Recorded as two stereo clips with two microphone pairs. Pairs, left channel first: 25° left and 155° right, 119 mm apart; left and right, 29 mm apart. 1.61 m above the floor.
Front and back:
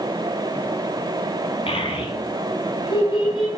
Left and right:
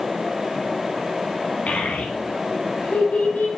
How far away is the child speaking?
About 2.5 m.